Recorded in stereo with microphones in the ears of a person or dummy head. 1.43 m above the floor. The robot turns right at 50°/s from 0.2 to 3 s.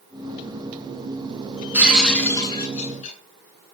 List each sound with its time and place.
1.7 s breaking glass: 10° right, 8 m; by 3.2 s 55° left, 8 m